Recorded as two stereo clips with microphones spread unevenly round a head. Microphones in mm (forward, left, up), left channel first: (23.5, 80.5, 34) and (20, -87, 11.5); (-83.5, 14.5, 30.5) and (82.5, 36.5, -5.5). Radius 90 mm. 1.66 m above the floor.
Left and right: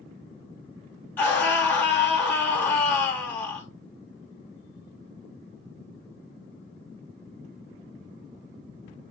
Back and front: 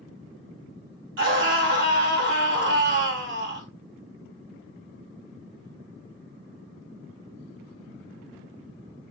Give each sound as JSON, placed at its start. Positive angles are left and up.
{"t": 1.2, "sound": "a scream", "azimuth_deg": 10, "distance_m": 3.0}